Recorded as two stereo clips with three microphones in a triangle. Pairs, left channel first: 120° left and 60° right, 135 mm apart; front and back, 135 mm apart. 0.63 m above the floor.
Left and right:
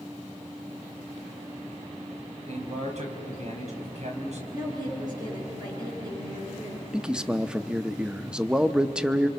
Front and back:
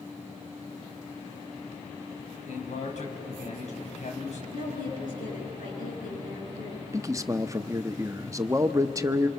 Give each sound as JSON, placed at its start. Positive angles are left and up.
{"t": 2.5, "sound": "a man speaking", "azimuth_deg": -30, "distance_m": 4.0}
{"t": 4.5, "sound": "a woman speaking", "azimuth_deg": 0, "distance_m": 8.5}
{"t": 6.9, "sound": "a man speaking", "azimuth_deg": -140, "distance_m": 0.7}